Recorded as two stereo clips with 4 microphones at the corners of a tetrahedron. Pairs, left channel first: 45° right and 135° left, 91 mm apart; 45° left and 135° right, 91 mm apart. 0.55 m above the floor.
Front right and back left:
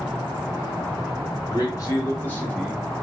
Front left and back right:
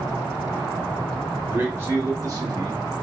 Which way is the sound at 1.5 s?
70° right.